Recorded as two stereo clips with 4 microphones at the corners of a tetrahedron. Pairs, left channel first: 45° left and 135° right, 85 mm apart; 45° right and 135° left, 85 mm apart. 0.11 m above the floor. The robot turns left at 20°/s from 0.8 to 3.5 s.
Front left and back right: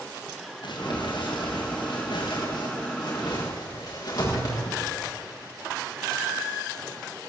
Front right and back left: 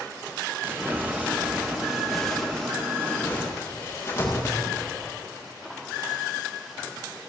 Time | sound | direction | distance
0.6 | crumpling | 70° left | 7 m